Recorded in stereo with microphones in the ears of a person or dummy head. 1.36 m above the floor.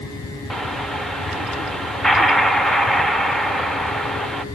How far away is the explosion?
About 1.1 m.